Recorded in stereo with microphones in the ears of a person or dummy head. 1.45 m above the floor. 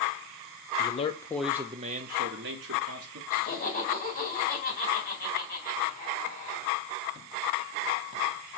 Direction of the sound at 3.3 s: 45° left (ahead or behind).